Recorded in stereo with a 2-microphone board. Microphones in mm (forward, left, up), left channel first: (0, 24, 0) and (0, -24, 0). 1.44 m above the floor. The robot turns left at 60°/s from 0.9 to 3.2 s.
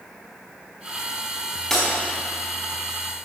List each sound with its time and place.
1.7 s breaking glass: 5° left (ahead or behind), 4.5 m; by 1.9 s 5° right (ahead or behind), 4.5 m